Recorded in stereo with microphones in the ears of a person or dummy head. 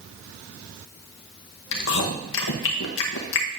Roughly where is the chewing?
Left.